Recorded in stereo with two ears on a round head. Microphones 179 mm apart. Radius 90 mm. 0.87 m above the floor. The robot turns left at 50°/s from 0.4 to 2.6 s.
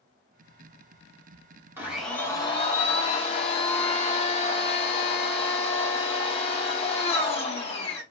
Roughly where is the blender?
Behind.